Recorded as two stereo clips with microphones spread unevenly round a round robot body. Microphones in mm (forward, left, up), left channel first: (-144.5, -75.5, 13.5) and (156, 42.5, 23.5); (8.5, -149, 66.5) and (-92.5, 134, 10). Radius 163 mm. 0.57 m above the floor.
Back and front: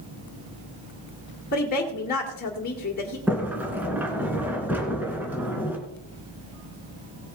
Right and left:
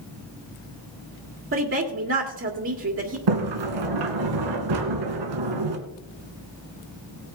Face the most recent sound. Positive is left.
turn(degrees=105)